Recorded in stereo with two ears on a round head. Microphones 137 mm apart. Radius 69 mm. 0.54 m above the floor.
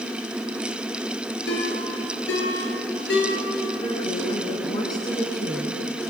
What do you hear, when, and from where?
1.5 s a ringtone: 75° left (ahead or behind), 8.5 m
3.8 s a woman speaking: 25° left (ahead or behind), 5.5 m